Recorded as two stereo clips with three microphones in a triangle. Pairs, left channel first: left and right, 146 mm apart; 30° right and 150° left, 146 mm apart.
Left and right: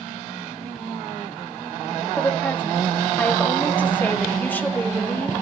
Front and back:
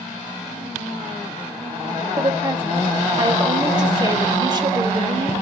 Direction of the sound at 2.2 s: 155° left.